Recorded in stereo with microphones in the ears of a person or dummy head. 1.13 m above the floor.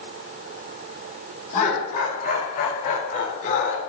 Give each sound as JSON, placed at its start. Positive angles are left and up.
{"t": 1.5, "sound": "laughter", "side_deg": 45, "distance_m": 5.0}